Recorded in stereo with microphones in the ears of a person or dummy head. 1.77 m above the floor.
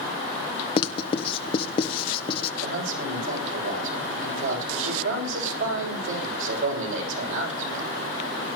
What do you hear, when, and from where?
0.8 s writing: 30° left (ahead or behind), 1.2 m
2.6 s a man speaking: 75° right (ahead or behind), 7.5 m